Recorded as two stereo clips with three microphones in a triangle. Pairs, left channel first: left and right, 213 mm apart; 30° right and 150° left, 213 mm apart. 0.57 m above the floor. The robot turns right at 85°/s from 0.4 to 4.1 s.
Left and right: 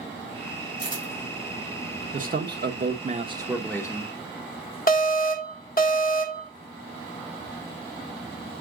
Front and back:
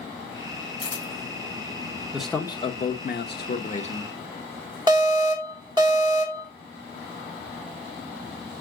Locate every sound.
0.8 s a camera shutter: 120° right, 3 m; by 1.1 s 95° right, 3 m
2.1 s a man speaking: 130° right, 1.2 m; by 4.2 s 40° left, 1.2 m
4.9 s an alarm: 90° left, 1.6 m